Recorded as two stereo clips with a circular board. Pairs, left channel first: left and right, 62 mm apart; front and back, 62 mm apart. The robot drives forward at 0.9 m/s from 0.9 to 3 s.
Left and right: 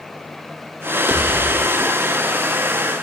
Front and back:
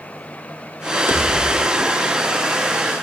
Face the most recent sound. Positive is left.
turn(degrees=-170)